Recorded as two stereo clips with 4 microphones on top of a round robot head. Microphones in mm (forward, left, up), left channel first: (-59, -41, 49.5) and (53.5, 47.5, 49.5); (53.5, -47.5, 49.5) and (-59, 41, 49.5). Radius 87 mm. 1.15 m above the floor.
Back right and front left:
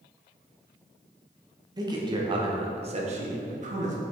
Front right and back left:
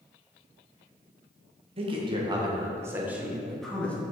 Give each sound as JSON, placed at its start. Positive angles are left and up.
{"t": 1.8, "sound": "a man speaking", "azimuth_deg": 95, "distance_m": 1.5}